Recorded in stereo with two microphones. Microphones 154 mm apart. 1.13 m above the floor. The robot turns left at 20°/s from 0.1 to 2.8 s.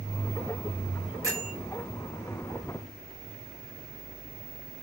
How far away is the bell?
About 2 m.